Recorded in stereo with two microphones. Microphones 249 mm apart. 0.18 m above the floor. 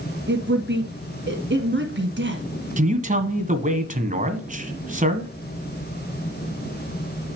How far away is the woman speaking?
About 1.8 m.